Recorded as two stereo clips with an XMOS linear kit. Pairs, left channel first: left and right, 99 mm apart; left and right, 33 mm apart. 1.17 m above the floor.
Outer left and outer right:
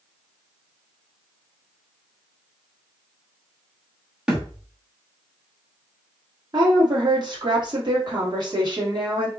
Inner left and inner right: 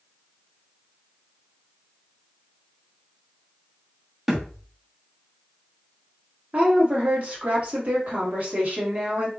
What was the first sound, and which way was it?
A thud, 10° right (ahead or behind).